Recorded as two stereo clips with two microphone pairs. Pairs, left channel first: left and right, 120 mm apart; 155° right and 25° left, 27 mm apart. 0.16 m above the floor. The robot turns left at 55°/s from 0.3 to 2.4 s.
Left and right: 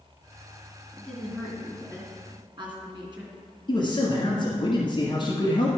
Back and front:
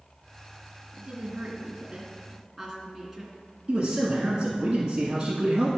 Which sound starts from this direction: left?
A man speaking, at 3.7 s.